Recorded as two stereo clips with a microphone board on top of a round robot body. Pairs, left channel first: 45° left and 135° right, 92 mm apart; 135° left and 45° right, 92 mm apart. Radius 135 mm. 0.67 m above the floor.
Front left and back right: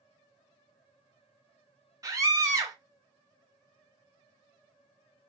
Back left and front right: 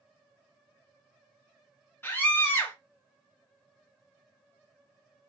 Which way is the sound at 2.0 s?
170° right.